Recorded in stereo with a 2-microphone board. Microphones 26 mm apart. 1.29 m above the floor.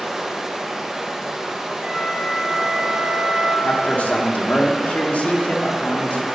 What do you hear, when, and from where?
0.0 s running water: 20° right (ahead or behind), 0.9 m
1.8 s a flute: 65° right (ahead or behind), 3 m
3.6 s a man speaking: 75° left (ahead or behind), 1.1 m